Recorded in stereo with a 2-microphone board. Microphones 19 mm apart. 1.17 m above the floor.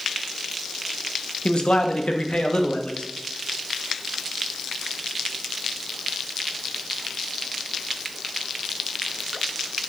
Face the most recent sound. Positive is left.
turn(degrees=80)